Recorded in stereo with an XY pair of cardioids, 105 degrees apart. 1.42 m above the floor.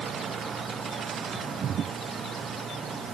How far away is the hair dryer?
No hair dryer in this recording.